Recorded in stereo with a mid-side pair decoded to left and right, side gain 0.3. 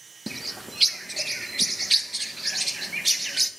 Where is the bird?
30° right, 1.3 m.